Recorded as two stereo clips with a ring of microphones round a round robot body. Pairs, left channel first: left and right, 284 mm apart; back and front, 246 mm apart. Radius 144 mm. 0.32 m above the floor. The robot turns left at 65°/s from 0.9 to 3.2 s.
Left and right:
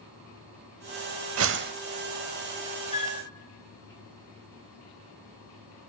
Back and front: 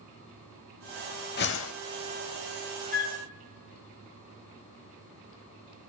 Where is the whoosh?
125° right, 0.6 m; by 1.7 s 150° right, 0.6 m.